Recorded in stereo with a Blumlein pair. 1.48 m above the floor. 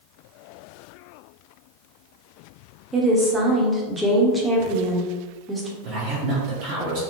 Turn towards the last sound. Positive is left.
turn(degrees=-45)